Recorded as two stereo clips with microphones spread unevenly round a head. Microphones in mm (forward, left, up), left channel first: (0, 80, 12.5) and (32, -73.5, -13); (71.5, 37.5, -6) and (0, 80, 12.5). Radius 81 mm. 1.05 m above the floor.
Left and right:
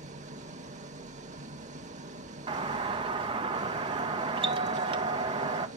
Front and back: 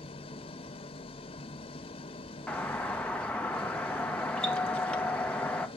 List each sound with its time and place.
0.0 s an engine running: 30° right, 0.9 m
2.5 s a doorbell: 85° right, 0.6 m